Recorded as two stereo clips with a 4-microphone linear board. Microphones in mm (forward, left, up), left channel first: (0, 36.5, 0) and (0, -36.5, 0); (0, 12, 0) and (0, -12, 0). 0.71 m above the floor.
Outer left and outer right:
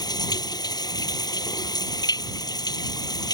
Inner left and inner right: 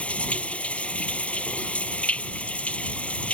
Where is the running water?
65° left (ahead or behind).